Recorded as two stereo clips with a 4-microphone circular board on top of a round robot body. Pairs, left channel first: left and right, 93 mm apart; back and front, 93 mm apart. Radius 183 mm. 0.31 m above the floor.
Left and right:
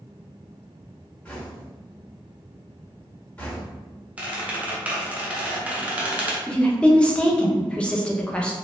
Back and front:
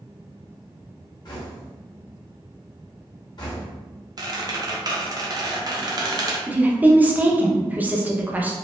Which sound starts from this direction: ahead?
A squeak, at 4.2 s.